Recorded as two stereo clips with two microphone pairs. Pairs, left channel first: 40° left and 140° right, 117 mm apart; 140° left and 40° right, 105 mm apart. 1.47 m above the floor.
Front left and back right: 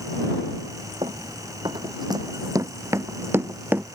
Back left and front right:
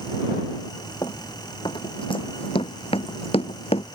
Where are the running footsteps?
175° right; by 3.9 s 145° left.